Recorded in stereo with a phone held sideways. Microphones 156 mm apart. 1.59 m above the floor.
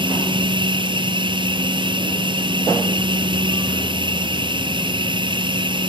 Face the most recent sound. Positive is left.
turn(degrees=-30)  # may be behind; listen again after turning